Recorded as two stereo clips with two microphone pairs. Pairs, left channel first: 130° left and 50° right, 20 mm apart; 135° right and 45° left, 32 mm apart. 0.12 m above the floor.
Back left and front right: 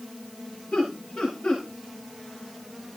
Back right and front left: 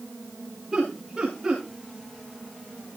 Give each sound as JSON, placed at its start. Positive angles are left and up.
{"t": 0.7, "sound": "laughter", "azimuth_deg": 120, "distance_m": 9.5}